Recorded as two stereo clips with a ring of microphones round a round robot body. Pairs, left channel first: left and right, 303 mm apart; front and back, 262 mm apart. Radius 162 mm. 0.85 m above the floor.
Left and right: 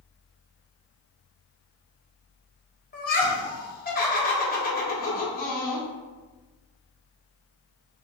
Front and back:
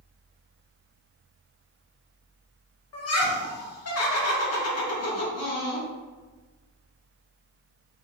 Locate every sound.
2.9 s laughter: 30° left, 1.5 m